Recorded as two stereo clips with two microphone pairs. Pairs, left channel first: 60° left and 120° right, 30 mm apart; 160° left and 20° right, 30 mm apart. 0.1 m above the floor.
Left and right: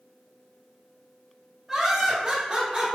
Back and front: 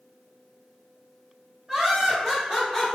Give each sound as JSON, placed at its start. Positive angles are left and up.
{"t": 1.7, "sound": "laughter", "azimuth_deg": -45, "distance_m": 1.4}